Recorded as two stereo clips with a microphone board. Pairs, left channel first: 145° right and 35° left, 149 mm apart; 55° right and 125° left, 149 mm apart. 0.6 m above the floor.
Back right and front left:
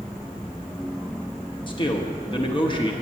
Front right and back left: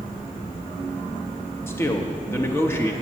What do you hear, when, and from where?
1.7 s a man speaking: 120° right, 0.8 m